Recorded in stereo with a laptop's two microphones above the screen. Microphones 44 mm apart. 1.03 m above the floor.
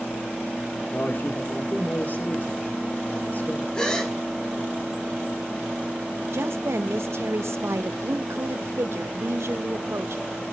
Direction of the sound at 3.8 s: 15° left (ahead or behind).